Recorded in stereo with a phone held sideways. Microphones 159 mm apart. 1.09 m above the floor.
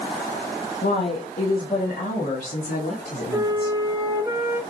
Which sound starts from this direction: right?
A flute, at 3.3 s.